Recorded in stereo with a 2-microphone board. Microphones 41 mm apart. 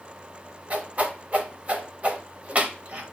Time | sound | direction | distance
0.7 | a whoosh | 35° right (ahead or behind) | 0.9 m